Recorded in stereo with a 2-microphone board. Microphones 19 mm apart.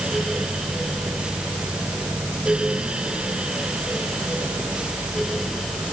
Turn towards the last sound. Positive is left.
No sound to turn to.